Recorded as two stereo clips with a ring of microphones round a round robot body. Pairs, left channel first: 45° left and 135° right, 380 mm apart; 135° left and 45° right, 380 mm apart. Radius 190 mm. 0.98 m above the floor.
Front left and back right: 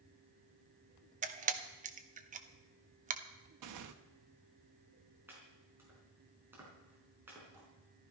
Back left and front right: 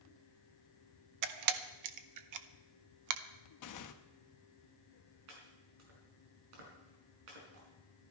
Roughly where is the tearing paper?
Behind.